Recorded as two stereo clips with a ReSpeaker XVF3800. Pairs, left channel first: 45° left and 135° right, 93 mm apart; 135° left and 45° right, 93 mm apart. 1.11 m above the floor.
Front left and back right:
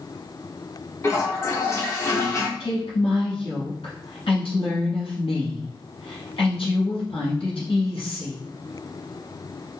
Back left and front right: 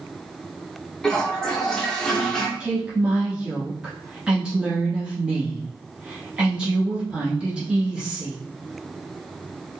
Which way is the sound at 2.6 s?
35° left.